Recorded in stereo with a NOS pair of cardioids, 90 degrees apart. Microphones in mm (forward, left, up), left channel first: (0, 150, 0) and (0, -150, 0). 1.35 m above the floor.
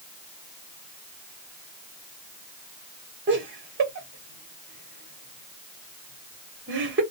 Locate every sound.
3.3 s laughter: 40° right, 1.2 m